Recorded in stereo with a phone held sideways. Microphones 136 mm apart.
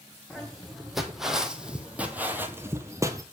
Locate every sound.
0.3 s footsteps: centre (ahead or behind), 2.5 m; by 3.2 s 25° right (ahead or behind), 1.3 m